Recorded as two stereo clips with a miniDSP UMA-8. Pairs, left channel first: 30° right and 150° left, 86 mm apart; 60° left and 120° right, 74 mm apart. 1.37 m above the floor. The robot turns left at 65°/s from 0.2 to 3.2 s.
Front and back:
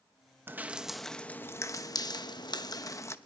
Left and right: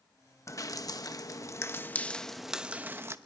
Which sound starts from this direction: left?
Dripping, at 0.5 s.